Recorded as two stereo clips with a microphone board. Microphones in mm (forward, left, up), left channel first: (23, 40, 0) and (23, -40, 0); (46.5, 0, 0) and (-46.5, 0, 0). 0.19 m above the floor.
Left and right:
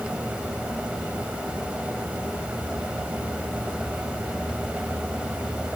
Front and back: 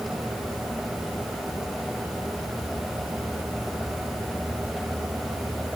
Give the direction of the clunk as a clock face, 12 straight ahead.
I don't hear a clunk.